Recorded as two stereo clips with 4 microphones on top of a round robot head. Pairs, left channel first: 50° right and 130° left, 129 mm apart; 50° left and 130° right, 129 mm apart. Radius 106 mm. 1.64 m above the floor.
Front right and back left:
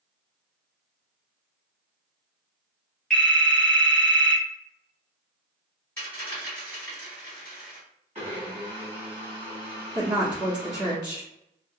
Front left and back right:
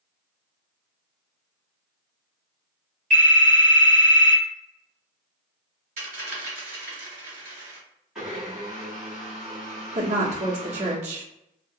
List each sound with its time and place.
3.1 s a phone ringing: 130° right, 0.6 m
6.0 s a dropped coin: 120° right, 1.1 m
8.2 s a blender: 145° left, 1.0 m
9.9 s a woman speaking: 170° right, 0.7 m